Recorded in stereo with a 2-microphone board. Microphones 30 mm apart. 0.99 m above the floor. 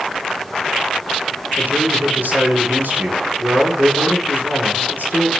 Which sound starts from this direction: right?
A man speaking, at 1.6 s.